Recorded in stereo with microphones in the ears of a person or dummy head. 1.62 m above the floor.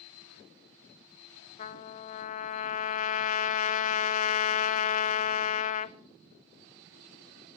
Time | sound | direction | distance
1.6 | a trumpet | 45° left (ahead or behind) | 0.6 m